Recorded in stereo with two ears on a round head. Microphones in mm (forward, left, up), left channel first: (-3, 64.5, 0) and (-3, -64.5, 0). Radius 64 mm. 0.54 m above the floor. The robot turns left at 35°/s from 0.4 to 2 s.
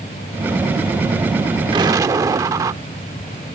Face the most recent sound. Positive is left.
turn(degrees=-25)  # may be behind; listen again after turning